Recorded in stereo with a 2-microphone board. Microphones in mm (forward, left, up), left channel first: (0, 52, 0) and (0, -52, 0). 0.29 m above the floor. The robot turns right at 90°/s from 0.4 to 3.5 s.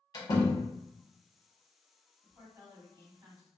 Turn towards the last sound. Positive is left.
turn(degrees=-30)